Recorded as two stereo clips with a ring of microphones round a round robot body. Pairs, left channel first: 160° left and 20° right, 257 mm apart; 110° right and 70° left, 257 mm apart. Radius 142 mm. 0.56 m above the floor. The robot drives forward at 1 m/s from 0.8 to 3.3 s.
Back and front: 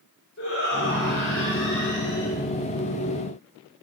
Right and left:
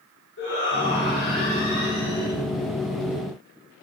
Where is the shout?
160° right, 8.5 m.